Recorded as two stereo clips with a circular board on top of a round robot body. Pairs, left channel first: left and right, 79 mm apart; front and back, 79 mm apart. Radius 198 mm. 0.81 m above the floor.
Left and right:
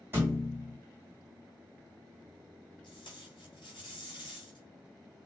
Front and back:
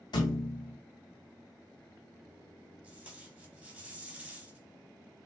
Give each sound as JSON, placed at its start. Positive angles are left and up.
{"t": 0.1, "sound": "a thud", "azimuth_deg": -25, "distance_m": 1.5}
{"t": 2.8, "sound": "tape being pulled", "azimuth_deg": 110, "distance_m": 3.0}